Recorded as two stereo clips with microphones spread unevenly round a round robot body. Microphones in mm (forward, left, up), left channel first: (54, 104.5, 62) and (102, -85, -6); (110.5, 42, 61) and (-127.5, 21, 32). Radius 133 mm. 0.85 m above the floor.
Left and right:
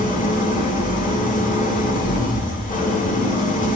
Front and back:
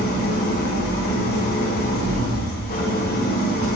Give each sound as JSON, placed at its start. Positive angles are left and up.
{"t": 0.0, "sound": "an engine running", "azimuth_deg": 55, "distance_m": 3.0}